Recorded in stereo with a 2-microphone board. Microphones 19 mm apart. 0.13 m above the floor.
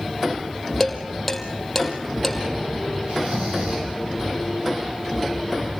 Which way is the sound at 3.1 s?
65° right (ahead or behind).